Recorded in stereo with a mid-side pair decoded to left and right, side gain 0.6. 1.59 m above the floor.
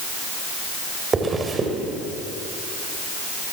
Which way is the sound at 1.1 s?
25° right.